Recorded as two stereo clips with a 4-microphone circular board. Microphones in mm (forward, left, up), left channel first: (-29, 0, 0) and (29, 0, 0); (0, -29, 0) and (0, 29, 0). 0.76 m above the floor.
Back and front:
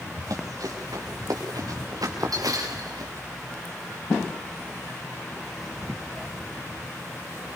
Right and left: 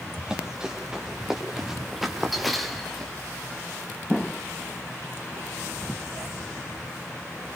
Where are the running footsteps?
15° left, 6.5 m; by 3.1 s 5° right, 4.5 m.